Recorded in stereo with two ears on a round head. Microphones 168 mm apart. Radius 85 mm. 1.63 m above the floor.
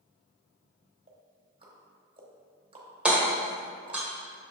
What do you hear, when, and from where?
1.1 s ticking: 30° right (ahead or behind), 1.1 m
3.0 s hammering: 5° right (ahead or behind), 1.1 m